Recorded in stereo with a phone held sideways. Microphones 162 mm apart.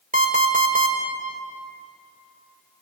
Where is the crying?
No crying in this recording.